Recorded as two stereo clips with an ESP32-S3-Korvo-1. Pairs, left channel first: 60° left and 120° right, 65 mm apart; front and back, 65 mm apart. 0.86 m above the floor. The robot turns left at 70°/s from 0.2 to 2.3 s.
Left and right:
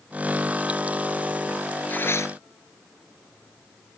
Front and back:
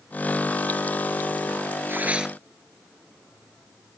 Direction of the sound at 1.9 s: 125° left.